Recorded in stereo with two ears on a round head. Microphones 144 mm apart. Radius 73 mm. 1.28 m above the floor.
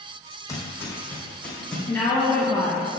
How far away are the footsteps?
About 3 m.